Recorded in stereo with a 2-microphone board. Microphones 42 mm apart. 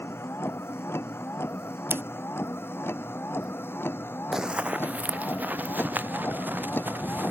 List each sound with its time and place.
0.0 s a vehicle: 80° left; by 7.3 s 55° left (ahead or behind)
1.9 s scissors: 65° right (ahead or behind)
4.3 s running footsteps: 10° right (ahead or behind); by 7.3 s 50° right (ahead or behind)